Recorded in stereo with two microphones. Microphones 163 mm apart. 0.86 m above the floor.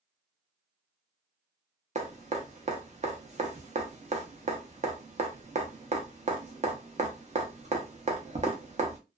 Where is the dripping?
45° right (ahead or behind), 0.7 m.